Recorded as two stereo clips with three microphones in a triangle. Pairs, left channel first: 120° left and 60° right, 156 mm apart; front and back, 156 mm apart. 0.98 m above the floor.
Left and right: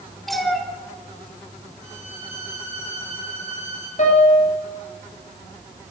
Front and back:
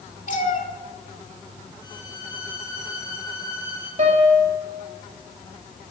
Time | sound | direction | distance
0.3 | a cat meowing | 30° left | 1.3 m
1.8 | a violin | 15° left | 3.5 m
4.0 | a piano | 150° left | 3 m